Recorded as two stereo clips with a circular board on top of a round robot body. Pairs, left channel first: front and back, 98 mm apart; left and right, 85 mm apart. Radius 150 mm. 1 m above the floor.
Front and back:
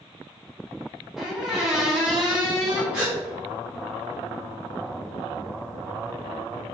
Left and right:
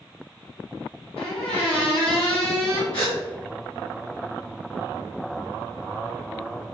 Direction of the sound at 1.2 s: 95° left.